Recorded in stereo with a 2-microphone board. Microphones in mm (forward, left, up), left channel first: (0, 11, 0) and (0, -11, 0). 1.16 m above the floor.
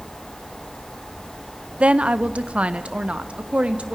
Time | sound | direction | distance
1.8 | a woman speaking | 65° right (ahead or behind) | 0.8 m